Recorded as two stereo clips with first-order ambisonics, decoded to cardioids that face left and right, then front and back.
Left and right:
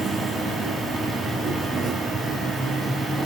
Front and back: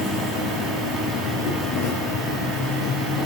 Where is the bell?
I don't hear a bell.